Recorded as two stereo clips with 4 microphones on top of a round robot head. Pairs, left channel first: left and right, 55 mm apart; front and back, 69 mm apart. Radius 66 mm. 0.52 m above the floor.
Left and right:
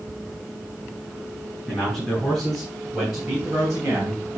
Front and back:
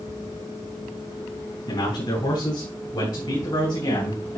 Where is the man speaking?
10° left, 4 m; by 4.4 s 25° right, 3 m.